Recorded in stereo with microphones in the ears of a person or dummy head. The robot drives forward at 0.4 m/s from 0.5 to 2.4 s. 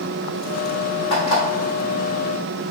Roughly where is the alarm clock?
Left.